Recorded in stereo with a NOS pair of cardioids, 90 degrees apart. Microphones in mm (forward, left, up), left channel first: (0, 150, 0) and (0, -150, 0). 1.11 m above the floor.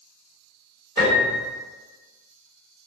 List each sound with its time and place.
1.0 s a piano: 35° right, 1.8 m